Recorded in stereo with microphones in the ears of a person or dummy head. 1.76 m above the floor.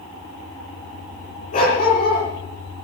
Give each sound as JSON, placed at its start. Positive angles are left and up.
{"t": 1.5, "sound": "a dog barking", "side_deg": 40, "distance_m": 9.0}